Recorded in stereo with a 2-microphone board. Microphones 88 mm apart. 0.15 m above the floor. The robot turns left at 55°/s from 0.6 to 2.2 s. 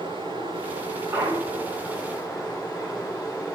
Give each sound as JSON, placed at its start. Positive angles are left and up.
{"t": 0.0, "sound": "running water", "azimuth_deg": -105, "distance_m": 7.0}
{"t": 1.1, "sound": "a clunk", "azimuth_deg": -160, "distance_m": 3.5}